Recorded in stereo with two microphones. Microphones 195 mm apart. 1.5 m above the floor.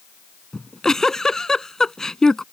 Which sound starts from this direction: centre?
A giggle, at 0.5 s.